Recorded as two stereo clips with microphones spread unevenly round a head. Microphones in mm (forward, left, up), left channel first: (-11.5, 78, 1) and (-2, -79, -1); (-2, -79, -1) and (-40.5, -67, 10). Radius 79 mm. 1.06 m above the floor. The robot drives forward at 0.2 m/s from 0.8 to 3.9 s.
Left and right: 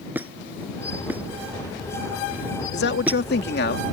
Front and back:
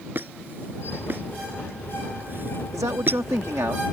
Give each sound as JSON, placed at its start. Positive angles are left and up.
{"t": 0.1, "sound": "a squeak", "azimuth_deg": -165}
{"t": 2.7, "sound": "a man speaking", "azimuth_deg": 110}